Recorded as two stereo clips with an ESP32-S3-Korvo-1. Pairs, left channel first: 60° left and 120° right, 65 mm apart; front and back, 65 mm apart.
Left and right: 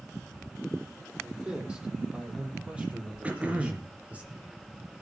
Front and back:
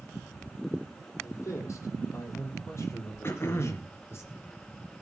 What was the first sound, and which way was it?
A man speaking, 45° right.